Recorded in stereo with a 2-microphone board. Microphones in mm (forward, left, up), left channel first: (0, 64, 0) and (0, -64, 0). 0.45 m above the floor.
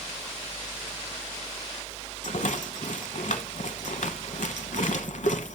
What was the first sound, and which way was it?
A rattle, 75° left (ahead or behind).